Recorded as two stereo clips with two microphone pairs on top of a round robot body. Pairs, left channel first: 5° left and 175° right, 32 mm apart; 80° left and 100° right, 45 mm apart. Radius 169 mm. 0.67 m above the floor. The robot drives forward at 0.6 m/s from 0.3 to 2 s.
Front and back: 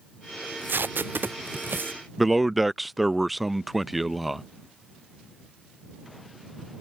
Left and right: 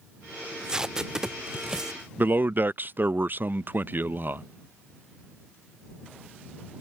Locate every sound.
0.4 s tape being pulled: 175° right; by 2.0 s straight behind
2.2 s a man speaking: 90° right